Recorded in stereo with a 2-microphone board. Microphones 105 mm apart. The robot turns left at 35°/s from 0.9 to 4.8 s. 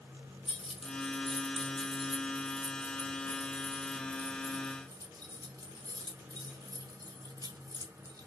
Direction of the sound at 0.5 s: 75° left (ahead or behind).